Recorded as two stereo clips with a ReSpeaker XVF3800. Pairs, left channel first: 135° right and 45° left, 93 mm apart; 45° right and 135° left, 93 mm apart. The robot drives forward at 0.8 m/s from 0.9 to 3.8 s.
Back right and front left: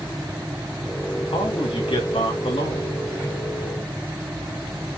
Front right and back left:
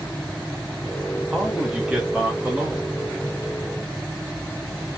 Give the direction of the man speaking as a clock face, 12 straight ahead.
5 o'clock.